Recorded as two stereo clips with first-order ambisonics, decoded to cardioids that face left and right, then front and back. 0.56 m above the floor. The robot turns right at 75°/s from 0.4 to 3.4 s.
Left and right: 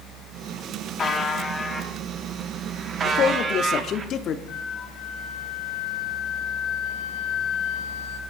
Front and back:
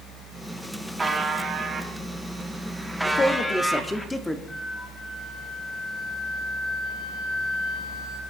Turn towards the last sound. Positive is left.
turn(degrees=65)